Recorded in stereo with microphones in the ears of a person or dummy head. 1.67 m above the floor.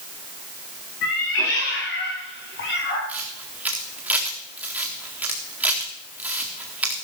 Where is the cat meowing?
55° left (ahead or behind), 2.5 m; by 3.0 s 65° left (ahead or behind), 4 m.